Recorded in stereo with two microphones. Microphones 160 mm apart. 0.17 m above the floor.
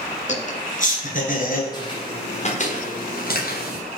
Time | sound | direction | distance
0.3 | laughter | 50° left (ahead or behind) | 2 m
1.7 | footsteps | 25° left (ahead or behind) | 2.5 m